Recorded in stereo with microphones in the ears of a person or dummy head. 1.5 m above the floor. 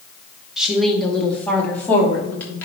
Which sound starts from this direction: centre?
A woman speaking, at 0.6 s.